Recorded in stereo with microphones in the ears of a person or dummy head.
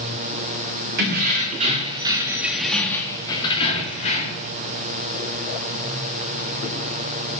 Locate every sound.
1.0 s keys jangling: 55° right (ahead or behind), 1.9 m; by 4.5 s 50° left (ahead or behind), 2.5 m